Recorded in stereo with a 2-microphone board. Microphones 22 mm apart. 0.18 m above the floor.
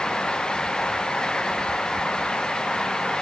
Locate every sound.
Only background noise.